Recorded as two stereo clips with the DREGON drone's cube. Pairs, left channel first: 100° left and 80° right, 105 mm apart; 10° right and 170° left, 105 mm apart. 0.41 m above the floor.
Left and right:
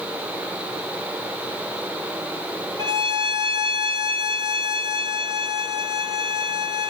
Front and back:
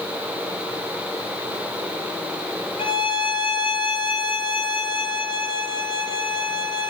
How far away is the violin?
About 1.3 m.